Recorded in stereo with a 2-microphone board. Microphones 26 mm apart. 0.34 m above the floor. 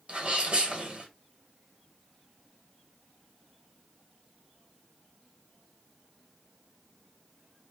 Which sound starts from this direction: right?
A sneeze, at 0.1 s.